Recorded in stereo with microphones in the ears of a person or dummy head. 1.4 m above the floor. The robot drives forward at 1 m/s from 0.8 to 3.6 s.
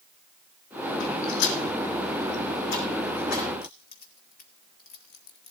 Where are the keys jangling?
50° left (ahead or behind), 2 m.